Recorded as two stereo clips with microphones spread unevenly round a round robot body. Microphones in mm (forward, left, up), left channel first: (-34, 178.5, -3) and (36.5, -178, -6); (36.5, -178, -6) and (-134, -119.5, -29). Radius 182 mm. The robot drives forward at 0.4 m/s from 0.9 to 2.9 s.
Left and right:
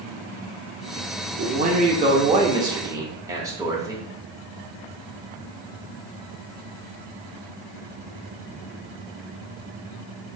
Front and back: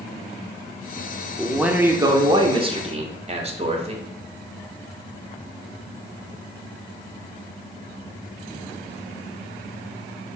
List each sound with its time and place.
1.4 s a man speaking: 120° right, 0.7 m; by 4.0 s 155° right, 1.0 m